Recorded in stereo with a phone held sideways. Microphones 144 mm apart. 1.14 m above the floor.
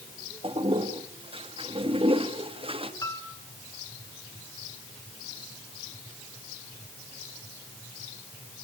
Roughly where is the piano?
Centre.